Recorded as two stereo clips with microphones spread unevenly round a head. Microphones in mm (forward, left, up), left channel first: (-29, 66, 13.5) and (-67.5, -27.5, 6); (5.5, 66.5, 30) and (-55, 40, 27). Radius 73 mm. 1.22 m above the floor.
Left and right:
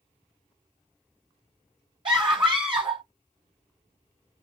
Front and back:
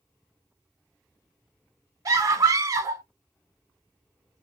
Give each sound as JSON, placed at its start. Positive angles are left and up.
{"t": 2.0, "sound": "a scream", "azimuth_deg": -140, "distance_m": 1.3}